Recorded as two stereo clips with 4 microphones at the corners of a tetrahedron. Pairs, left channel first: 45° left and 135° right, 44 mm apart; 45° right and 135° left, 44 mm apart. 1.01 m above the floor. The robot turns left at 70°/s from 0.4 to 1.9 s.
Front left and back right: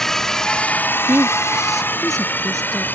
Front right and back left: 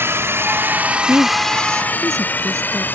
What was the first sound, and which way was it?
A drone, 125° left.